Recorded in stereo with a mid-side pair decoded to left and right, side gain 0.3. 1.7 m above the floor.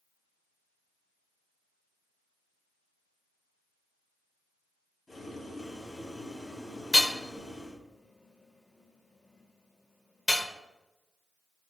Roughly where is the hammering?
Ahead left.